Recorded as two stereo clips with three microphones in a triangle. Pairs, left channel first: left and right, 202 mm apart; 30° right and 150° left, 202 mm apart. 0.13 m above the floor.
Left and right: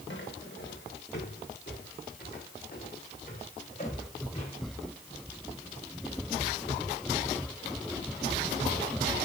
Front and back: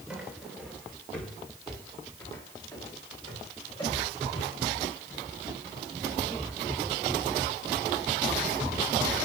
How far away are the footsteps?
About 3 m.